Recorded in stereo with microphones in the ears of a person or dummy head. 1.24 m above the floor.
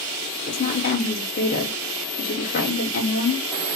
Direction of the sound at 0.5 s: 40° left (ahead or behind).